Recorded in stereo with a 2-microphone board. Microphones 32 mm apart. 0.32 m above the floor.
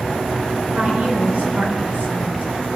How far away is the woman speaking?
About 4.5 m.